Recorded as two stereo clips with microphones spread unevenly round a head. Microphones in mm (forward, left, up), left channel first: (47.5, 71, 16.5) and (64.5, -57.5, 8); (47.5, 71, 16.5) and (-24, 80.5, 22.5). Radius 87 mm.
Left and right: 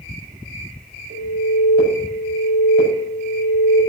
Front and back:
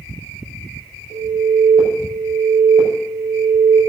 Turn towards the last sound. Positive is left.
turn(degrees=-65)